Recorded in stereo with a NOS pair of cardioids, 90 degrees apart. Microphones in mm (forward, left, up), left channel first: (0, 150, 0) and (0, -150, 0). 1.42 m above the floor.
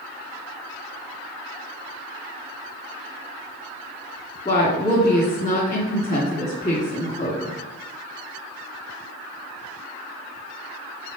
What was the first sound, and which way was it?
A woman speaking, 25° left.